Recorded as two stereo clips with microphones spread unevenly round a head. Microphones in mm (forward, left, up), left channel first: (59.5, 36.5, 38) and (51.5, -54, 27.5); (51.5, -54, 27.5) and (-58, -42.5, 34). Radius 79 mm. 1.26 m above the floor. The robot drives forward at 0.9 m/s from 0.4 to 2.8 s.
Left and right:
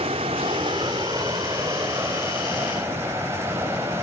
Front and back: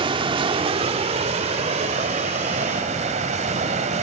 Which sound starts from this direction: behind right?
Running water, at 0.0 s.